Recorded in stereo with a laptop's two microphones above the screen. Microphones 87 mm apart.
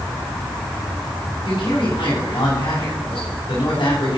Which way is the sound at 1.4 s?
80° left.